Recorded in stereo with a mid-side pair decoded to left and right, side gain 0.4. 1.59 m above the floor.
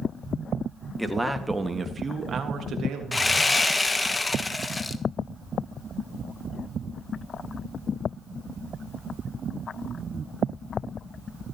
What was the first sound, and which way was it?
A man speaking, 5° right.